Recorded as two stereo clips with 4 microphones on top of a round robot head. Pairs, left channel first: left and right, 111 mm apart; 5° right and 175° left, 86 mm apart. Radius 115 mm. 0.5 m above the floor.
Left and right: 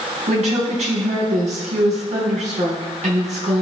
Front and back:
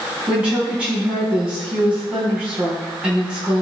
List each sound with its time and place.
0.3 s a woman speaking: 105° right, 4 m